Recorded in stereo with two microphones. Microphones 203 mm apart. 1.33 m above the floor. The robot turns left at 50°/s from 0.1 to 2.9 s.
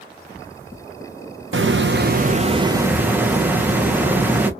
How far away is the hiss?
About 0.9 m.